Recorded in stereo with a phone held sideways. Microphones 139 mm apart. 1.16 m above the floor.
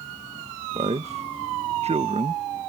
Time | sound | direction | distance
0.7 | a man speaking | 55° right (ahead or behind) | ?